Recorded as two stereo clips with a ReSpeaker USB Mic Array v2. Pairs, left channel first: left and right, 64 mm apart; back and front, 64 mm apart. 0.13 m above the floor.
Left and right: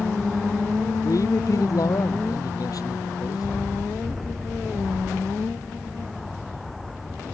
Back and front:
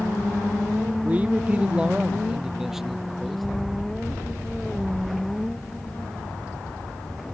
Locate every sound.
1.0 s a man speaking: 65° left; by 3.5 s 90° left